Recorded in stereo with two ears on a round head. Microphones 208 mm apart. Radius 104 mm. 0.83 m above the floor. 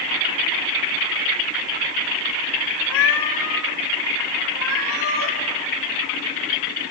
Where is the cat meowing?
60° left (ahead or behind), 1.3 m.